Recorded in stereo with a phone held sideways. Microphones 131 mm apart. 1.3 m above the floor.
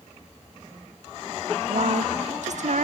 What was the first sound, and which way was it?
A woman speaking, 65° right (ahead or behind).